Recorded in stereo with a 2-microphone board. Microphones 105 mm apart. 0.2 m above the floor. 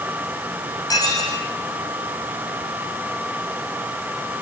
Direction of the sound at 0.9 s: 35° left (ahead or behind).